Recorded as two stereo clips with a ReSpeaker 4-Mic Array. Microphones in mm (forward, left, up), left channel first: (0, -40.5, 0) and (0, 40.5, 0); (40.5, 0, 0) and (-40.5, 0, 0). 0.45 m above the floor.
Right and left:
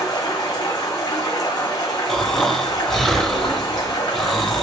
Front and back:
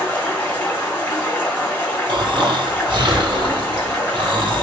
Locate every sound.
0.0 s running water: 70° right, 1.5 m
2.1 s snoring: 175° right, 0.7 m